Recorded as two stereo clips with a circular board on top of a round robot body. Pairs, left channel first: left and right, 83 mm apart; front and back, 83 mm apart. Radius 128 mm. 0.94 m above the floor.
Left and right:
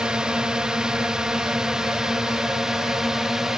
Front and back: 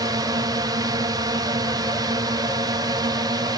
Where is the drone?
170° right; by 3.6 s 175° right.